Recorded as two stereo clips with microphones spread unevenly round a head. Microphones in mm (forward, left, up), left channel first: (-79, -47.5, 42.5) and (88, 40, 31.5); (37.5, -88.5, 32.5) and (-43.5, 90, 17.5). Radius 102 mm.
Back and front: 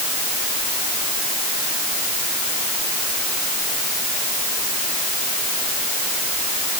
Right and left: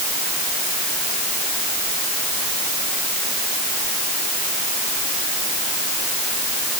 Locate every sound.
Only background noise.